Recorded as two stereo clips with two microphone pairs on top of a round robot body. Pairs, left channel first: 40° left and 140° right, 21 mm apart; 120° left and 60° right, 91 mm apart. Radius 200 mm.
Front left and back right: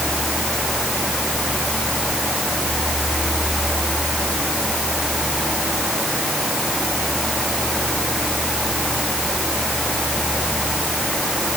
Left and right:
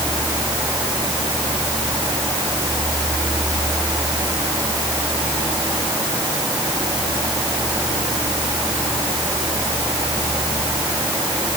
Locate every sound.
Only background noise.